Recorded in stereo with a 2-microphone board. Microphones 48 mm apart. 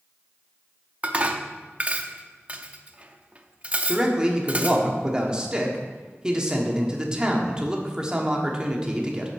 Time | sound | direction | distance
1.0 | dishes clattering | 30° right (ahead or behind) | 0.6 m
3.9 | a man speaking | 20° right (ahead or behind) | 1.2 m